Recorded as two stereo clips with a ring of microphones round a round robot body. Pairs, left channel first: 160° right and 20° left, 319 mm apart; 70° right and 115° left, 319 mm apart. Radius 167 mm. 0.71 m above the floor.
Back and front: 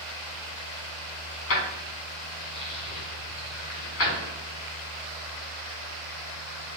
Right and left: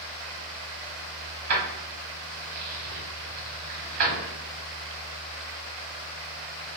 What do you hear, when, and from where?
1.5 s keys jangling: 150° left, 1.3 m